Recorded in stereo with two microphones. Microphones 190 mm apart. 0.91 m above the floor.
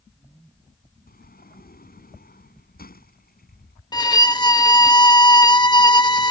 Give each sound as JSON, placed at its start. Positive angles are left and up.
{"t": 1.1, "sound": "a sliding door", "side_deg": 55}
{"t": 3.9, "sound": "a violin", "side_deg": 20}